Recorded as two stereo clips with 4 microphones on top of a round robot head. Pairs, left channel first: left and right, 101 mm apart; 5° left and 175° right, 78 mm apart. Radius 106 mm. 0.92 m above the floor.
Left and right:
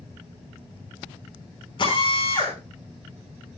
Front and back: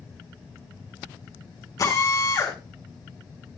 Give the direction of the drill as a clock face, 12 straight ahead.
10 o'clock.